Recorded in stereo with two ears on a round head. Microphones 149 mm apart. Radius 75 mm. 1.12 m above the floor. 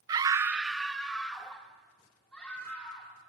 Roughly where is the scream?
Right.